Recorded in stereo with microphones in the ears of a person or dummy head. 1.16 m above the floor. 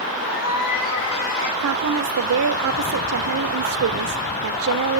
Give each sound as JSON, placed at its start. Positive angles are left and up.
{"t": 0.2, "sound": "a cat meowing", "side_deg": 75, "distance_m": 6.0}
{"t": 1.6, "sound": "a woman speaking", "side_deg": -75, "distance_m": 0.5}